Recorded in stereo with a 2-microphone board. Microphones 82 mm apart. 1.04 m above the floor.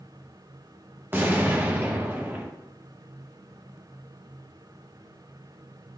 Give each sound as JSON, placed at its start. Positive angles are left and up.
{"t": 1.1, "sound": "an explosion", "side_deg": -25, "distance_m": 0.9}